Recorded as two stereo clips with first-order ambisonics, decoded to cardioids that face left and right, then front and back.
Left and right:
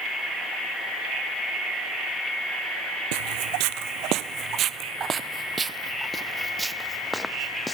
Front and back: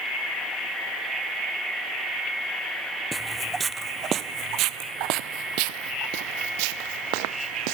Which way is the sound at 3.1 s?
95° right.